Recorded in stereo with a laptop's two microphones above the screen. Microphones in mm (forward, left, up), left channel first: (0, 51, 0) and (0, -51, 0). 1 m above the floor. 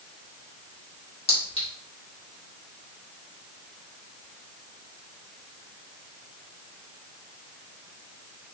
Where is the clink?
75° left (ahead or behind), 0.9 m.